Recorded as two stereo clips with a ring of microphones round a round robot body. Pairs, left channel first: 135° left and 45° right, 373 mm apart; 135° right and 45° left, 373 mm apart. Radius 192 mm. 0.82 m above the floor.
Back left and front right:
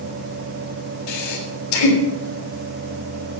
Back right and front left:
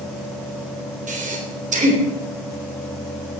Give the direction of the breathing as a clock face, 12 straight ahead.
8 o'clock.